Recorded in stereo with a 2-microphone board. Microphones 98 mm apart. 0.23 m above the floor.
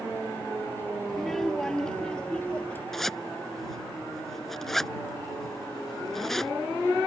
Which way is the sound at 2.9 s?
5° left (ahead or behind).